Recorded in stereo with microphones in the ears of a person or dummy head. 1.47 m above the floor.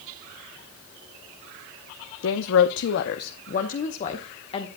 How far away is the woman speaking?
About 0.8 m.